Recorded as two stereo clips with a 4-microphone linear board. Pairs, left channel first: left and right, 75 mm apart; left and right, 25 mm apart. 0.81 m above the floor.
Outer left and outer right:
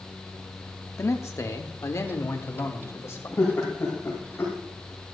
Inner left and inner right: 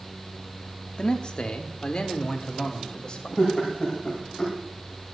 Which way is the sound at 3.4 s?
30° left (ahead or behind).